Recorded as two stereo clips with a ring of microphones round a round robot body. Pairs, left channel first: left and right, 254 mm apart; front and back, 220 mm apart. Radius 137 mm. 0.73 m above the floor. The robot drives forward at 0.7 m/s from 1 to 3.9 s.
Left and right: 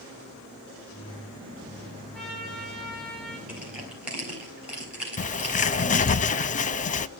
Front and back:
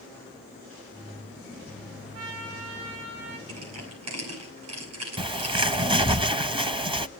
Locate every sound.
2.1 s a trumpet: straight behind, 6 m
3.5 s crushing: 175° right, 9 m
5.2 s a bird: 125° left, 0.8 m